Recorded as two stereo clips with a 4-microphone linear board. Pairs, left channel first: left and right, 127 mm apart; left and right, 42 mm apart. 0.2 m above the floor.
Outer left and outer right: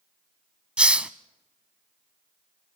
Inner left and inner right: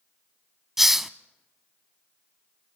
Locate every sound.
0.8 s a hiss: 10° right (ahead or behind), 0.6 m